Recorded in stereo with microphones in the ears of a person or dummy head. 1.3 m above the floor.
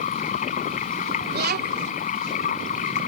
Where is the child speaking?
50° right (ahead or behind).